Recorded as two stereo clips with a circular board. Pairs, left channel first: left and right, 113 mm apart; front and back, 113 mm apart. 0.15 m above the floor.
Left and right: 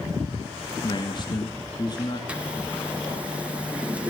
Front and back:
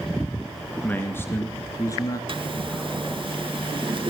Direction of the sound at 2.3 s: 165° right.